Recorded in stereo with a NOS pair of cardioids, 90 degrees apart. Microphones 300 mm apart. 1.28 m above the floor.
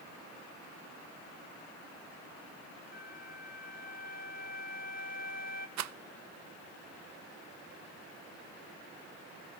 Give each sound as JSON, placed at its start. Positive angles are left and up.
{"t": 2.9, "sound": "a flute", "azimuth_deg": 30, "distance_m": 1.3}
{"t": 5.8, "sound": "a rattle", "azimuth_deg": -65, "distance_m": 0.7}